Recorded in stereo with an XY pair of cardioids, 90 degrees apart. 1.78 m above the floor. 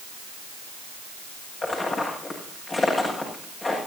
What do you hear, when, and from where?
1.6 s footsteps: 35° left, 7.5 m